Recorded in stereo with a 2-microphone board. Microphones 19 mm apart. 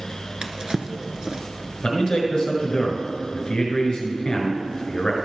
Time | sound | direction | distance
0.4 | a drawer | 35° right (ahead or behind) | 0.8 m
1.8 | a man speaking | 45° left (ahead or behind) | 1.8 m